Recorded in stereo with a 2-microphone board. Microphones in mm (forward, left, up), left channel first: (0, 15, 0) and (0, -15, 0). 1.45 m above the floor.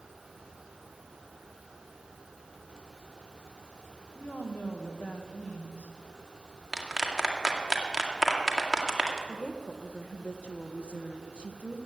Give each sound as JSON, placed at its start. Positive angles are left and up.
{"t": 4.2, "sound": "a woman speaking", "side_deg": 85, "distance_m": 1.4}
{"t": 6.7, "sound": "a clap", "side_deg": -5, "distance_m": 1.8}
{"t": 9.3, "sound": "a woman speaking", "side_deg": 40, "distance_m": 1.1}